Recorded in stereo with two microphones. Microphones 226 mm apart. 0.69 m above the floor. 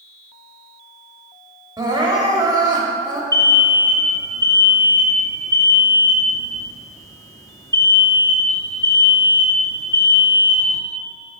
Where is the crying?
15° right (ahead or behind), 1.2 m.